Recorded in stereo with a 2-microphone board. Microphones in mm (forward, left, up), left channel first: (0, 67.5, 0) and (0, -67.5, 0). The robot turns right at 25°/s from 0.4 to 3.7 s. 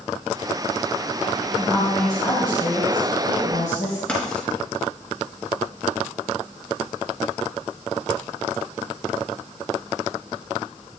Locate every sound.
1.6 s a woman speaking: 15° left, 3 m; by 4.0 s 70° left, 3 m
4.1 s writing: 5° left (ahead or behind), 4 m